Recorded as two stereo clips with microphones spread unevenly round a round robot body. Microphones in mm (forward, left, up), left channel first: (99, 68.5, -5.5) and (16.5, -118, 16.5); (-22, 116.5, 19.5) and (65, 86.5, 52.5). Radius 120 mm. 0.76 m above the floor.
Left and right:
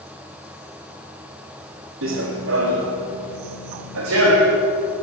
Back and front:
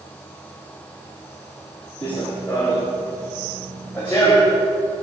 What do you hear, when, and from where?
2.0 s running footsteps: 110° right, 2 m